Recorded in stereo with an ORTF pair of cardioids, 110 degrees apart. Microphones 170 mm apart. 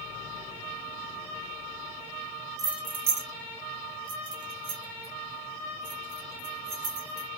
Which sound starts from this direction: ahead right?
Keys jangling, at 2.6 s.